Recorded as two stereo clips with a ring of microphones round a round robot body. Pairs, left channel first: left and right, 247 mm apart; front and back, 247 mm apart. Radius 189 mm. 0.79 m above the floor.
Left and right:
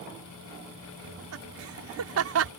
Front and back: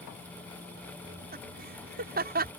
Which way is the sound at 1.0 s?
120° right.